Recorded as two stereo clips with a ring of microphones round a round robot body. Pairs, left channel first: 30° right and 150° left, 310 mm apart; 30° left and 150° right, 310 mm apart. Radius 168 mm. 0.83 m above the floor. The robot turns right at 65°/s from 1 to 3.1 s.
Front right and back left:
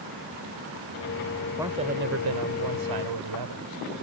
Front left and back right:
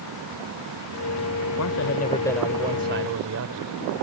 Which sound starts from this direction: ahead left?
A man speaking, at 1.6 s.